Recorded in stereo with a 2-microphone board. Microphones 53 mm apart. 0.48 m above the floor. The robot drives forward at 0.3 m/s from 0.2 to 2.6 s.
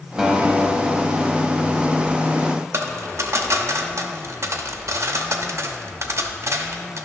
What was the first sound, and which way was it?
A guitar, 10° right (ahead or behind).